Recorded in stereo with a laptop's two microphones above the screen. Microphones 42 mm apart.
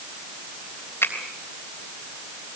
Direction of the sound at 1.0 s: 75° left (ahead or behind).